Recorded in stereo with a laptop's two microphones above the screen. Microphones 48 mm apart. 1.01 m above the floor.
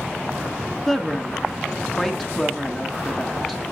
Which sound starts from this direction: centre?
A woman speaking, at 0.9 s.